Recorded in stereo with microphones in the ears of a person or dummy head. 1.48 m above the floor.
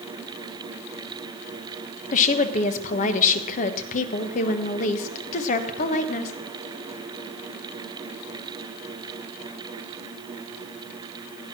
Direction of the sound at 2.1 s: 40° left (ahead or behind).